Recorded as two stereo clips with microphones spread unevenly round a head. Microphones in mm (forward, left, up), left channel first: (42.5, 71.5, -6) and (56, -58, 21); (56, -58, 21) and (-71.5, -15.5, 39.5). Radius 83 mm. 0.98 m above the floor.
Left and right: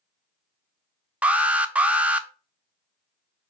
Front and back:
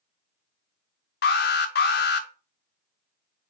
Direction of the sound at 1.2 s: 5° right.